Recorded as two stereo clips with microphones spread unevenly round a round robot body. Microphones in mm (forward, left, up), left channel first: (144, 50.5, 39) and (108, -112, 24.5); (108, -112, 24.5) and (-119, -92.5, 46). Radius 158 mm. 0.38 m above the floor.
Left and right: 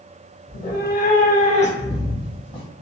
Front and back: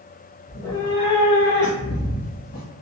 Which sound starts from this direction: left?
A cat meowing, at 0.5 s.